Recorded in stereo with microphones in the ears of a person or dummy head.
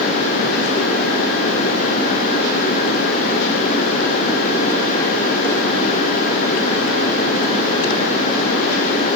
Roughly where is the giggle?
I don't hear a giggle.